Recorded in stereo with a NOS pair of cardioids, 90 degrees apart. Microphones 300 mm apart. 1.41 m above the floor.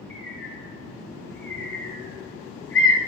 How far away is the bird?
About 6.5 m.